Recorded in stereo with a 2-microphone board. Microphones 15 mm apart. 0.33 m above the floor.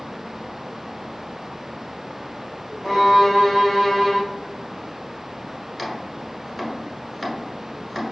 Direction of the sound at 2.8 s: 30° left (ahead or behind).